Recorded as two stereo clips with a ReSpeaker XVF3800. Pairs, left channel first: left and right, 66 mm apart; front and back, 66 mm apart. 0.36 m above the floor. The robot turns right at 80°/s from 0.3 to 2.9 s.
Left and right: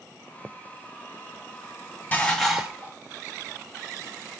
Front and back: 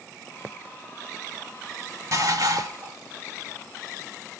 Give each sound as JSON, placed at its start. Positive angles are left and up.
{"t": 2.1, "sound": "dishes clattering", "azimuth_deg": 150, "distance_m": 1.4}